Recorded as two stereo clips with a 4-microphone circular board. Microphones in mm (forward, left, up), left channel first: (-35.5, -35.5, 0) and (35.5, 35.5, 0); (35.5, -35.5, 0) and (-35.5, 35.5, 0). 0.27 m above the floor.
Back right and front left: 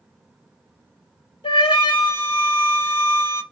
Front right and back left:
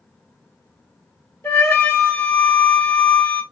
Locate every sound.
1.4 s a flute: 105° right, 1.3 m